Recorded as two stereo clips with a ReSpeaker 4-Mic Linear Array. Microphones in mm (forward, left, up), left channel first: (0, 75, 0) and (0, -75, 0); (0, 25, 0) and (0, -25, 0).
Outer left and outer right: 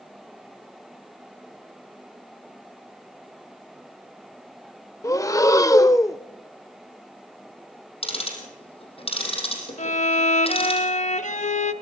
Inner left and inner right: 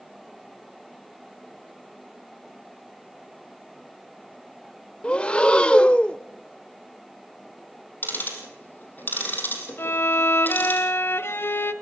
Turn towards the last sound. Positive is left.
turn(degrees=55)  # may be behind; listen again after turning